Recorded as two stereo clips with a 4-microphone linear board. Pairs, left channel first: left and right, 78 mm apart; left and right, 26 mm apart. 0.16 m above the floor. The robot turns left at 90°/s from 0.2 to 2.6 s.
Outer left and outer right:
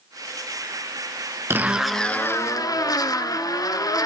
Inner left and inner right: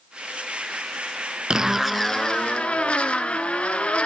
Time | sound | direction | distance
1.5 | a zipper | 145° right | 0.7 m